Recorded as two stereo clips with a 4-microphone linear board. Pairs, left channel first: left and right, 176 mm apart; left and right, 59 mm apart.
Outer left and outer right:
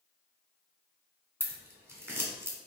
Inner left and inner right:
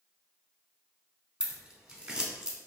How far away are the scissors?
About 0.8 m.